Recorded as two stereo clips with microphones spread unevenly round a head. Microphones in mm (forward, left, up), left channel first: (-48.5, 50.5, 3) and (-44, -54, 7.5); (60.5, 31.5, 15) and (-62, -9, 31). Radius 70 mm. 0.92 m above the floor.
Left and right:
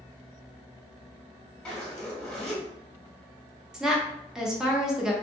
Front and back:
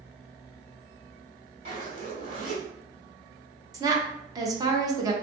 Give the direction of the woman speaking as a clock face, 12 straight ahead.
6 o'clock.